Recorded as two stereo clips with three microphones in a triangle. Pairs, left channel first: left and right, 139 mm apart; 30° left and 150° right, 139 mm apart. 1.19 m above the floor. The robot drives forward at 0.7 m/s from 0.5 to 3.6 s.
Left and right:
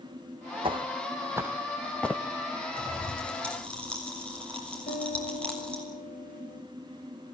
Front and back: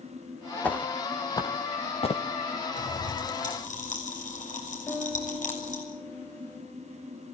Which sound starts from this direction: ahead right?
Footsteps, at 0.6 s.